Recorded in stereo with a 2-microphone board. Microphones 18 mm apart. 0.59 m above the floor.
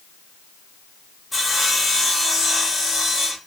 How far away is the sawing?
About 0.8 m.